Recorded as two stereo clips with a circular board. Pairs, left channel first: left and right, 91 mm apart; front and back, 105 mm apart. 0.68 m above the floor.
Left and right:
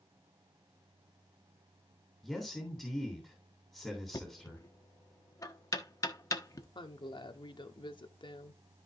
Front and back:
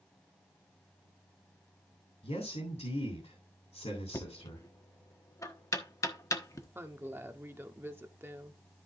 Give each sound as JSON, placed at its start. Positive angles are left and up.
{"t": 2.2, "sound": "a man speaking", "azimuth_deg": 0, "distance_m": 3.0}
{"t": 4.1, "sound": "knocking", "azimuth_deg": 50, "distance_m": 1.2}
{"t": 6.8, "sound": "a woman speaking", "azimuth_deg": 115, "distance_m": 1.1}